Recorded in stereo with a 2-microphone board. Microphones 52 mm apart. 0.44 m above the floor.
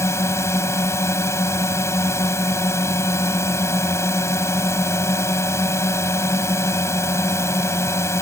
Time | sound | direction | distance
0.0 | a drone | 60° left (ahead or behind) | ?